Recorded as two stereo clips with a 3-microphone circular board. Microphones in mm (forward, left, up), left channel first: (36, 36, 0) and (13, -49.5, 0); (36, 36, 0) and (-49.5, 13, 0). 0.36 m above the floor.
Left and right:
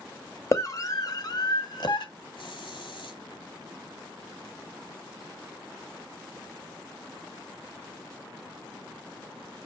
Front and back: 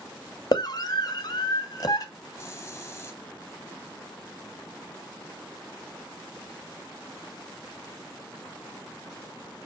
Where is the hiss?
75° left, 1.4 m.